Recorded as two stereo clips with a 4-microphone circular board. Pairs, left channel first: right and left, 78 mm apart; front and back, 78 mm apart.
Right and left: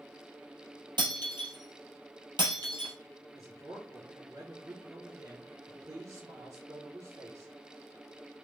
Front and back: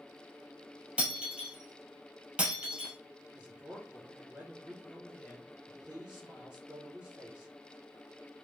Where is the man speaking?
110° left, 1.4 m.